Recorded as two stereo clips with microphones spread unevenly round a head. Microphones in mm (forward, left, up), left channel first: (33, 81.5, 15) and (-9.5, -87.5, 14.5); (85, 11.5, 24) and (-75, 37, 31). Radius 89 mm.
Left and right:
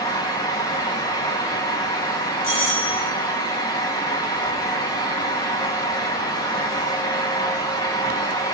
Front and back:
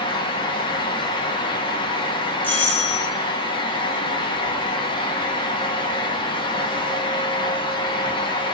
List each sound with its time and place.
0.0 s a fan: 20° left, 1.6 m
2.4 s a doorbell: 70° left, 5 m